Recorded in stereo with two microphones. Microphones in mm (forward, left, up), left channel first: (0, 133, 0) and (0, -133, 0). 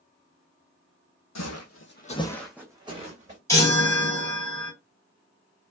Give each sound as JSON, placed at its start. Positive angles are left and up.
{"t": 1.4, "sound": "footsteps", "side_deg": 80, "distance_m": 0.8}
{"t": 3.5, "sound": "a chime", "side_deg": 10, "distance_m": 1.9}